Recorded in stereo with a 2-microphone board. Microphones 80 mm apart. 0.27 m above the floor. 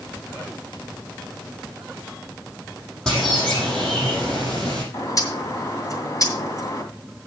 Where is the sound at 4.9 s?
45° left (ahead or behind), 2.5 m.